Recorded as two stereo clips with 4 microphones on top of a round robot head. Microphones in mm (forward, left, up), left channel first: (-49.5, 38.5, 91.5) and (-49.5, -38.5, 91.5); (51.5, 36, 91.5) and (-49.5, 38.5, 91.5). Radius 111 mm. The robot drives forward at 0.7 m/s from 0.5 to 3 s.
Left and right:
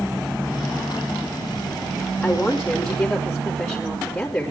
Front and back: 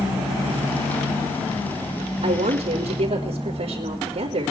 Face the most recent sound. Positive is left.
turn(degrees=165)